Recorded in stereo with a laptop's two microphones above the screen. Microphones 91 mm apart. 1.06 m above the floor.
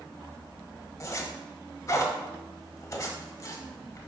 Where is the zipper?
40° left (ahead or behind), 1.1 m.